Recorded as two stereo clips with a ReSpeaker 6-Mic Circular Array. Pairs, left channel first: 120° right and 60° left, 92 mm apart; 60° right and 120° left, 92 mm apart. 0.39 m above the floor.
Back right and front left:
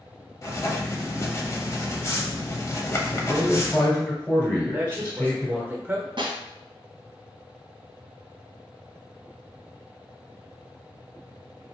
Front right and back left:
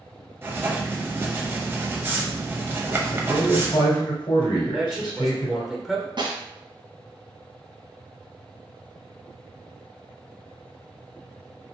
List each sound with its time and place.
0.4 s writing: 175° right, 0.6 m
3.1 s a man speaking: 55° right, 1.3 m
4.6 s a man speaking: 40° left, 0.8 m
6.2 s a snare drum: 90° left, 1.1 m